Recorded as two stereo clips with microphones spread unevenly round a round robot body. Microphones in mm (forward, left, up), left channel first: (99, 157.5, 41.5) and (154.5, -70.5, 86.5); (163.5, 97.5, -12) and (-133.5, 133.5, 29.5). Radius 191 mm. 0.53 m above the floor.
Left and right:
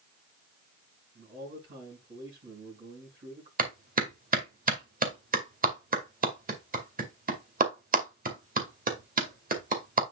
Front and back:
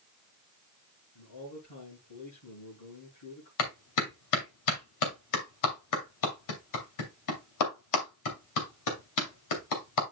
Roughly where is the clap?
Ahead.